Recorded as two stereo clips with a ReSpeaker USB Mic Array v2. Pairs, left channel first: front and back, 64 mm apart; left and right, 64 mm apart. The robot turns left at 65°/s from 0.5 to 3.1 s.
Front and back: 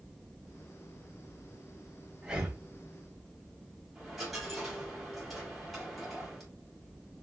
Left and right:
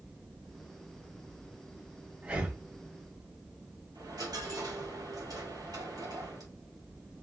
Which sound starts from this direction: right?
A dropped coin, at 4.0 s.